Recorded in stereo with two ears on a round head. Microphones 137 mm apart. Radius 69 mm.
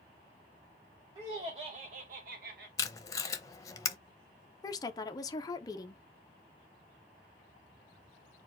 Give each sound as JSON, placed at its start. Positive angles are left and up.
{"t": 1.1, "sound": "laughter", "side_deg": -20, "distance_m": 1.1}
{"t": 2.8, "sound": "tape being pulled", "side_deg": 20, "distance_m": 0.7}
{"t": 4.6, "sound": "a woman speaking", "side_deg": 25, "distance_m": 0.7}